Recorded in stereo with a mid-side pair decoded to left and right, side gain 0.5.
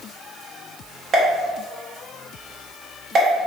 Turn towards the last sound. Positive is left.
turn(degrees=-50)